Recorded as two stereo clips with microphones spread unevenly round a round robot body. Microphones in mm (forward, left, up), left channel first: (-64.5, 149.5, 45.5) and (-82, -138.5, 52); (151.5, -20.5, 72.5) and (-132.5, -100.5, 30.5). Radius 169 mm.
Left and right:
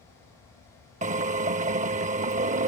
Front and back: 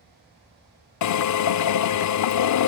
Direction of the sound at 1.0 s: 25° right.